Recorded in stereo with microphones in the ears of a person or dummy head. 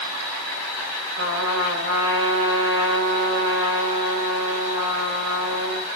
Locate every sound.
1.2 s a trumpet: 75° right (ahead or behind), 6.5 m